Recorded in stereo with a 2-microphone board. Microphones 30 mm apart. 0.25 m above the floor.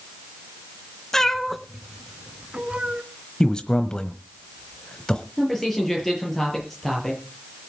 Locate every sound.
1.1 s a cat meowing: 20° left (ahead or behind), 1.0 m; by 3.0 s 40° right (ahead or behind), 1.2 m
3.4 s a man speaking: 30° left (ahead or behind), 1.0 m
5.4 s a man speaking: 5° left (ahead or behind), 6.5 m